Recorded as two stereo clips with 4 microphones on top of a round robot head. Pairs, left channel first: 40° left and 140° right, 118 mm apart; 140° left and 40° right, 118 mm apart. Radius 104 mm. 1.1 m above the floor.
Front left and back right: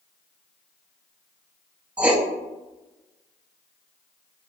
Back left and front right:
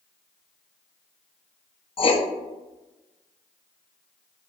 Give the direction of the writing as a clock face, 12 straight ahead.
7 o'clock.